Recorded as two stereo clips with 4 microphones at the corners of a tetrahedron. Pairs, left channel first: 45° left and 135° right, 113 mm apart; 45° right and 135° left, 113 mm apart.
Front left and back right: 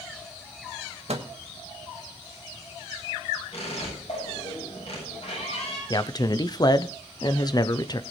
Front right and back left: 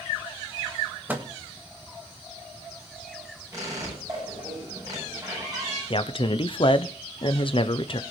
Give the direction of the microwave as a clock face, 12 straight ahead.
5 o'clock.